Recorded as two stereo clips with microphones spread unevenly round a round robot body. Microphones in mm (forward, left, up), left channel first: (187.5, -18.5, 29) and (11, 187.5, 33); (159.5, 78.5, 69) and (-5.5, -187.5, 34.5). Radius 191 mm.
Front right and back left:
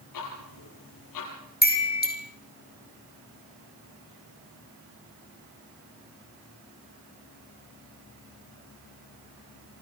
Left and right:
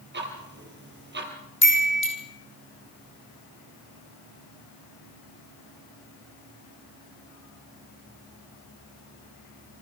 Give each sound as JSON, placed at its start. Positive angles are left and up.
{"t": 0.1, "sound": "ticking", "azimuth_deg": -65, "distance_m": 4.0}
{"t": 1.6, "sound": "a chime", "azimuth_deg": 5, "distance_m": 3.5}